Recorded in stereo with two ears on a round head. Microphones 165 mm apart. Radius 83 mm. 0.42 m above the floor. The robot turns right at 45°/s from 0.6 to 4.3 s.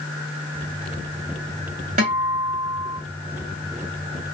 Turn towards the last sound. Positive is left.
turn(degrees=-5)